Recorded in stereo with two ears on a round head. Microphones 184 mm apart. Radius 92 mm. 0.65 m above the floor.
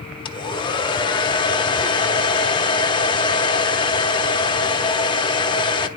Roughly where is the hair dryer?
Left.